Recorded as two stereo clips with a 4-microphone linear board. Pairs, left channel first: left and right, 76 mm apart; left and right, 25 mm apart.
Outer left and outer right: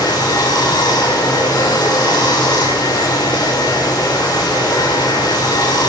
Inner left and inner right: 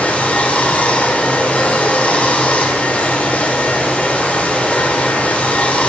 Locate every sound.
0.0 s running water: 70° left (ahead or behind), 2 m